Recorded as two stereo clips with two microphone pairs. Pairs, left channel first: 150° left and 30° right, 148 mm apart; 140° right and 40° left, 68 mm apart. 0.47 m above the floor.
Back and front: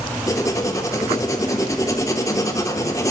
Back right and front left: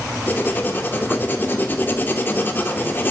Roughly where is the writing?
Behind.